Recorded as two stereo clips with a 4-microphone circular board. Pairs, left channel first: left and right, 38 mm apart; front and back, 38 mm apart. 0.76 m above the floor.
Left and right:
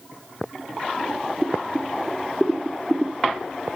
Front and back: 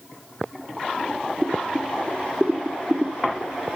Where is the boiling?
155° right, 1.9 m.